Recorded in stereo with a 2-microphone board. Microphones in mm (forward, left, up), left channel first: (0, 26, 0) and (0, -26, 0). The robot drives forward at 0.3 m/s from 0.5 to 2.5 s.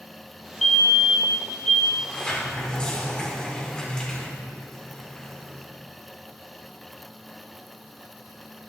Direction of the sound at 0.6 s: 5° left (ahead or behind).